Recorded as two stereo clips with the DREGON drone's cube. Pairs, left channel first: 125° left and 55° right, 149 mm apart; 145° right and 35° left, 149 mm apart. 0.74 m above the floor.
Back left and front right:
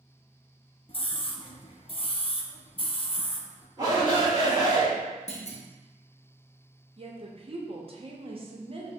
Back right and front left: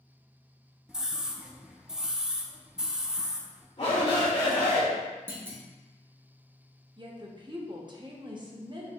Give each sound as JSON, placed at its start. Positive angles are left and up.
{"t": 0.9, "sound": "a scream", "azimuth_deg": 115, "distance_m": 0.6}
{"t": 3.8, "sound": "a shout", "azimuth_deg": -115, "distance_m": 1.9}
{"t": 5.3, "sound": "a clunk", "azimuth_deg": 105, "distance_m": 0.7}
{"t": 7.0, "sound": "a woman speaking", "azimuth_deg": -15, "distance_m": 0.8}